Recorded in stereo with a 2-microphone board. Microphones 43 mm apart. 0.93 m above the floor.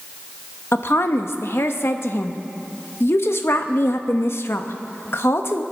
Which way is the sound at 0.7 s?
65° left (ahead or behind).